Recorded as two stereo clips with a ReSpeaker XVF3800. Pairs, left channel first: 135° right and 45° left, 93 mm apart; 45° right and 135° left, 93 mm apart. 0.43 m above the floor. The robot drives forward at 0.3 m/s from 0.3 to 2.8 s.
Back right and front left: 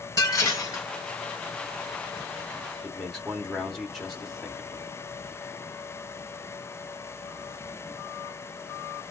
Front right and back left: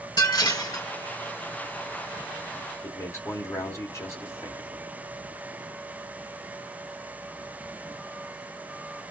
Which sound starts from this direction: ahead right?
A man speaking, at 2.8 s.